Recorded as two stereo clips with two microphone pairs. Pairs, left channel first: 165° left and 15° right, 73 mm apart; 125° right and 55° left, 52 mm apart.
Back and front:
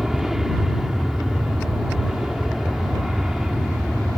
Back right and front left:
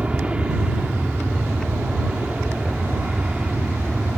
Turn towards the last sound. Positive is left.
turn(degrees=65)